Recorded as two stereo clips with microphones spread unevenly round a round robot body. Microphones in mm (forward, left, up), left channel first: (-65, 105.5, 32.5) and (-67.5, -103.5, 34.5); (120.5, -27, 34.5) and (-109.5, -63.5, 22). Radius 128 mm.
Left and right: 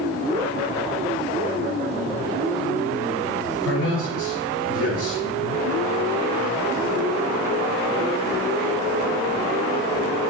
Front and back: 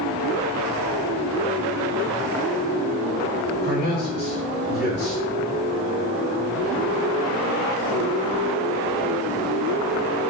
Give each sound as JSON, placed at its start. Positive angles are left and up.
{"t": 3.6, "sound": "a man speaking", "azimuth_deg": 60, "distance_m": 2.5}